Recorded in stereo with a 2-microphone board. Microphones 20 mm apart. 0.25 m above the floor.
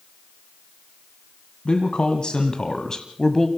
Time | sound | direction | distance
1.6 | a man speaking | 55° left (ahead or behind) | 1.6 m